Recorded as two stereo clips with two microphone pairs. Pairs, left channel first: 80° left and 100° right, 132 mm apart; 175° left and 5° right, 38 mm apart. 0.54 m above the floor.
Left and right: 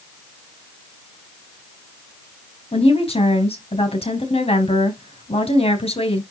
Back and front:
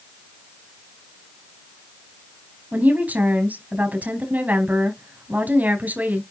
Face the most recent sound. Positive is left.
turn(degrees=40)